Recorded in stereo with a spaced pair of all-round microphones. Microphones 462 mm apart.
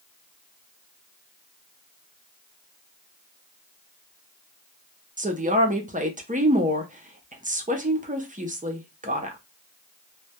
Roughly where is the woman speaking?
Centre.